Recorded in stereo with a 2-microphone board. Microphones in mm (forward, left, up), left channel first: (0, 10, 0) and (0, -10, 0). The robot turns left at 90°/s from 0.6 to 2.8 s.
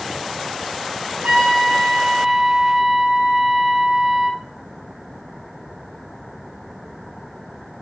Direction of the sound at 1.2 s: 70° right.